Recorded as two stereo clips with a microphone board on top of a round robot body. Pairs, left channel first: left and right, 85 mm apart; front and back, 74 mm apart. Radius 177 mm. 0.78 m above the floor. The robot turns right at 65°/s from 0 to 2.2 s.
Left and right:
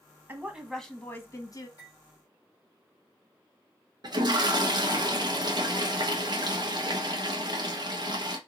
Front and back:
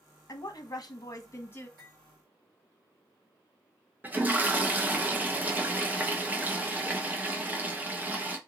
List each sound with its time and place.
0.3 s a woman speaking: 25° right, 1.0 m; by 1.7 s 65° left, 1.0 m
1.8 s cutlery clinking: 140° left, 2.5 m; by 2.0 s 150° left, 2.5 m
4.0 s a toilet flushing: 115° right, 1.0 m